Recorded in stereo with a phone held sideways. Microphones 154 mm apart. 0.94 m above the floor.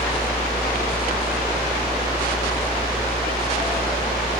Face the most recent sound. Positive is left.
turn(degrees=15)  # may be behind; listen again after turning